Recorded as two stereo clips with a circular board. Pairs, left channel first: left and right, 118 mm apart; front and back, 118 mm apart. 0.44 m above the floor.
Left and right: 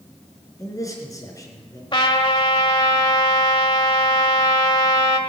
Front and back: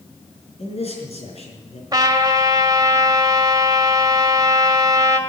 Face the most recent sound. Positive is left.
turn(degrees=125)